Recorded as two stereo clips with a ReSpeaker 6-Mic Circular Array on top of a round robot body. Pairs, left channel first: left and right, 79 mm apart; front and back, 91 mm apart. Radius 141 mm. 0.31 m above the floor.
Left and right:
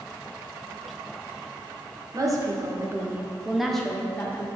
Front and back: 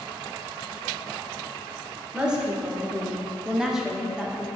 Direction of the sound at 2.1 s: 105° right.